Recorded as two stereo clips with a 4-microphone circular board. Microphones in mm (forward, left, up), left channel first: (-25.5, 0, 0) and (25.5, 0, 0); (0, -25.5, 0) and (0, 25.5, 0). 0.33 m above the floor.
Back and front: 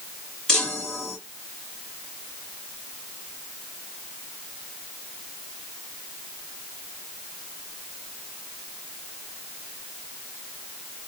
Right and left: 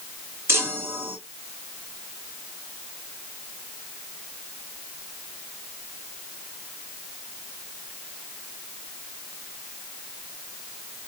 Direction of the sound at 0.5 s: 105° left.